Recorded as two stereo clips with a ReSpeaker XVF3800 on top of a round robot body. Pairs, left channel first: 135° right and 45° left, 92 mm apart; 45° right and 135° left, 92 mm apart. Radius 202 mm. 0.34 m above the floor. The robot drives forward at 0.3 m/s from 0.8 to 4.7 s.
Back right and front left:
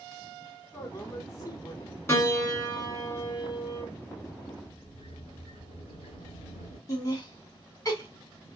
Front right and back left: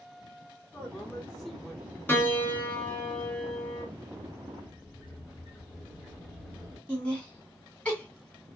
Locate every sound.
0.7 s a man speaking: 115° right, 1.2 m; by 2.0 s 145° right, 1.3 m
2.1 s a piano: 100° right, 1.5 m; by 3.9 s 130° right, 1.6 m
4.6 s a sliding door: 140° right, 0.9 m
6.9 s laughter: 120° right, 1.4 m